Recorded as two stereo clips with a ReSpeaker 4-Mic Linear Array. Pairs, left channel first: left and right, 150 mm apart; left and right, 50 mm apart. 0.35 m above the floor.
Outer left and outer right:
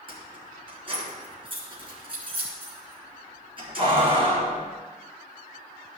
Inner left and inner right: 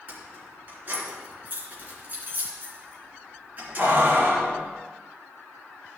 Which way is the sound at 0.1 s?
35° right (ahead or behind).